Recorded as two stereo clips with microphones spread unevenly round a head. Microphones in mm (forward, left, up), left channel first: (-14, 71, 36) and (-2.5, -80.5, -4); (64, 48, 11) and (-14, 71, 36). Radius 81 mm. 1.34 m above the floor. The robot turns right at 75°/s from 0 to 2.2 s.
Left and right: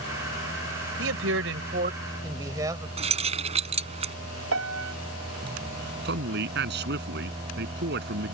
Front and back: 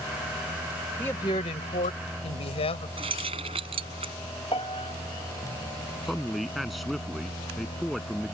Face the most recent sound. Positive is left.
turn(degrees=-110)